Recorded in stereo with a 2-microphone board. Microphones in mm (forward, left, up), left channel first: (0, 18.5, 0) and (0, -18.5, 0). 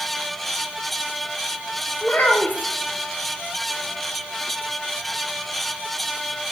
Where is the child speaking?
50° left (ahead or behind), 1.0 m.